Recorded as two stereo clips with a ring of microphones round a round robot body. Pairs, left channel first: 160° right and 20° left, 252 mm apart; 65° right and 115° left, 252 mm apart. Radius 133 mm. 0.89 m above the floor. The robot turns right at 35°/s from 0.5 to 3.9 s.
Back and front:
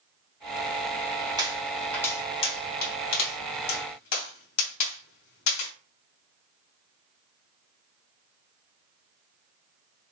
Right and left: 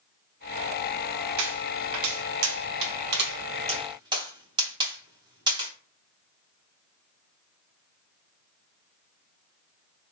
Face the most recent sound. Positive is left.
turn(degrees=-175)